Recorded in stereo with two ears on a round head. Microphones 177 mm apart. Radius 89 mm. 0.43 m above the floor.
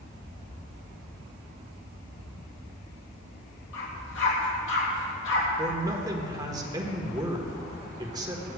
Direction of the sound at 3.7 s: 70° left (ahead or behind).